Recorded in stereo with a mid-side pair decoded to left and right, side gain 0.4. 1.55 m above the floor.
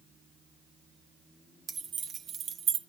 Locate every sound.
1.7 s keys jangling: 50° right, 1.4 m; by 2.8 s 80° right, 0.9 m